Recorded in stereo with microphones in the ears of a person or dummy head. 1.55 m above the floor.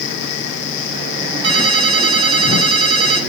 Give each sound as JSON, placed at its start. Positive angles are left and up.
{"t": 1.4, "sound": "a ringtone", "side_deg": -35, "distance_m": 4.5}